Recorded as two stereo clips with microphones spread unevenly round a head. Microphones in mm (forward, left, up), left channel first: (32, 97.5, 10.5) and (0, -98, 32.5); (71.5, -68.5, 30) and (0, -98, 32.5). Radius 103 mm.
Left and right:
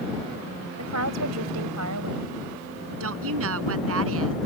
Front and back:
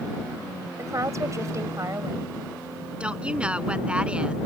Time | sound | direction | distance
0.8 | a woman speaking | 110° right | ?
3.0 | a woman speaking | 80° right | ?